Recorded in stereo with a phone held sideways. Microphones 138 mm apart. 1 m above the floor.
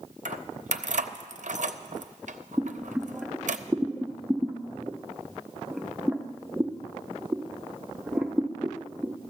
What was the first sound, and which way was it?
Keys jangling, 60° right (ahead or behind).